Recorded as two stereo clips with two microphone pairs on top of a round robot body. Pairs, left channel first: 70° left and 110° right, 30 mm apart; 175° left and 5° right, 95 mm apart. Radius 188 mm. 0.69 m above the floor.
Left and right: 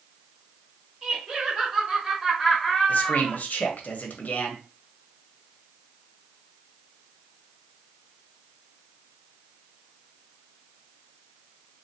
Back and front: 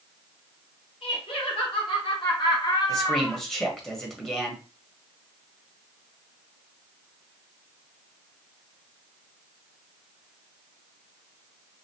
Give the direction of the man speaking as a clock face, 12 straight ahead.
9 o'clock.